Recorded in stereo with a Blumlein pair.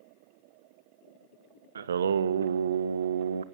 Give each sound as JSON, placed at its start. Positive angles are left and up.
{"t": 1.8, "sound": "singing", "azimuth_deg": -65, "distance_m": 0.8}